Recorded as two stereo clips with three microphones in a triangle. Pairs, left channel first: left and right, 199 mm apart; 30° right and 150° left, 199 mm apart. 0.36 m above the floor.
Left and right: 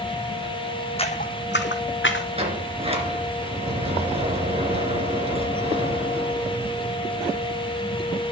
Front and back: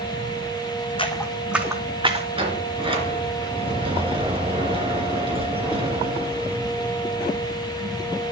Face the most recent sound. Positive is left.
turn(degrees=-150)